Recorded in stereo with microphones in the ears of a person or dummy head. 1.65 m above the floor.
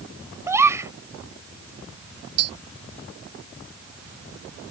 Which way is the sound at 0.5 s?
15° right (ahead or behind).